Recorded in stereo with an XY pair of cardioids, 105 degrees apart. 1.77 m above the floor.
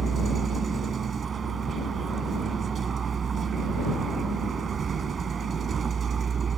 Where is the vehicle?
45° right.